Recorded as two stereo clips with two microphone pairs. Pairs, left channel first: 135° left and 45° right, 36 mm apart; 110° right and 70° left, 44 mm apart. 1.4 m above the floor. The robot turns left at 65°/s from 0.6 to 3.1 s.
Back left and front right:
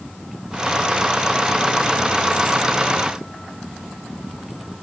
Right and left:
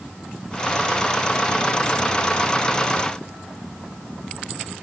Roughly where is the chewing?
I don't hear chewing.